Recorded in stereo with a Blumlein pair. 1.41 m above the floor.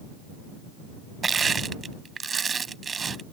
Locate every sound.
1.2 s crushing: 15° right